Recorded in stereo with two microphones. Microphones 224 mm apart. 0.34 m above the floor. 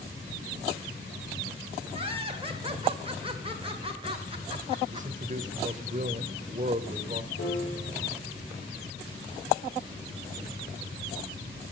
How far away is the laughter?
About 1.5 m.